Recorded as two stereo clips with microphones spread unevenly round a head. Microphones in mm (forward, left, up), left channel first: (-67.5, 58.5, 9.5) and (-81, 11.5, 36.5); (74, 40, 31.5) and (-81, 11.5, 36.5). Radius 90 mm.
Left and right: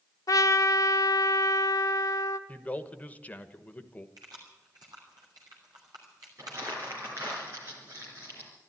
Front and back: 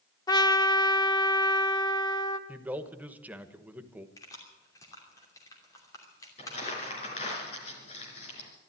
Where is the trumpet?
65° left, 0.8 m.